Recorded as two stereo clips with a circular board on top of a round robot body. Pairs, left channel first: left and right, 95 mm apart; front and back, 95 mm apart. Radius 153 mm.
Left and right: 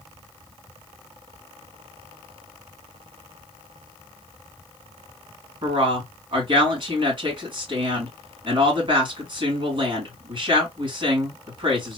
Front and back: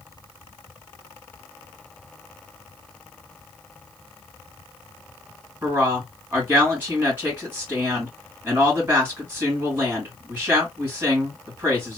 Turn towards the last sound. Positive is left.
turn(degrees=-110)